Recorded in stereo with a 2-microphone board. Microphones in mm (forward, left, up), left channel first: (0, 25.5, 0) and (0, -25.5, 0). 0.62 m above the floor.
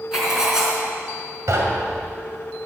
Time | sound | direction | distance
0.1 | writing | 10° right (ahead or behind) | 4 m
1.5 | knocking | 70° right (ahead or behind) | 2.5 m